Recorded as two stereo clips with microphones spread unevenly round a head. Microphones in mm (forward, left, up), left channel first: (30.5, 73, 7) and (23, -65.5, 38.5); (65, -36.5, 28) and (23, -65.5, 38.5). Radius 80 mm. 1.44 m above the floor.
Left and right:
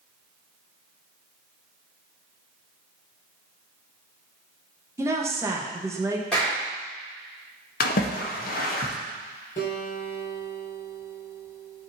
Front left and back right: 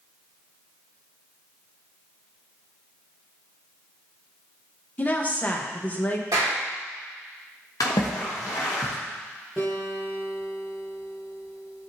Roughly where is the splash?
Ahead left.